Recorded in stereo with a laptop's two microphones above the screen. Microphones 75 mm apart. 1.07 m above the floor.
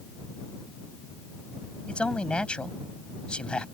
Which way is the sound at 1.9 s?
15° left (ahead or behind).